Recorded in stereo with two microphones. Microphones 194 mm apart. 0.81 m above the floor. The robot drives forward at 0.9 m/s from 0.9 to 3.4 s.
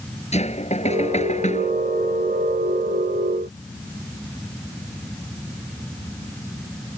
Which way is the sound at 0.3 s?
35° left (ahead or behind).